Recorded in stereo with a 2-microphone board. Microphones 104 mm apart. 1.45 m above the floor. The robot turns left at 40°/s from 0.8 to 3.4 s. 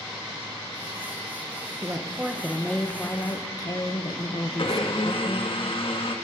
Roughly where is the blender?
Left.